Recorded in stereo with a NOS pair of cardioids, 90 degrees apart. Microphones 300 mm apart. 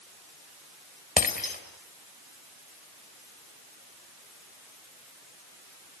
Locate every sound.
1.2 s breaking glass: 30° left, 4 m